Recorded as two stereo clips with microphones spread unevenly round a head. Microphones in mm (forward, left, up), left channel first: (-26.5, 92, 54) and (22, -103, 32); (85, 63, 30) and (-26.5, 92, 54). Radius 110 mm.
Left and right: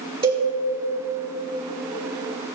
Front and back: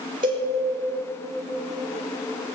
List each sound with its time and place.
0.2 s a cowbell: 145° right, 4.5 m